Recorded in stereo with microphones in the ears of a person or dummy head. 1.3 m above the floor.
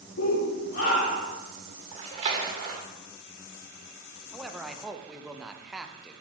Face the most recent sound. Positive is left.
turn(degrees=-5)  # may be behind; listen again after turning